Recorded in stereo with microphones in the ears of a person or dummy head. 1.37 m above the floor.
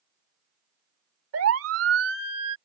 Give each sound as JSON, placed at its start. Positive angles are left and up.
{"t": 1.3, "sound": "a siren", "side_deg": -80}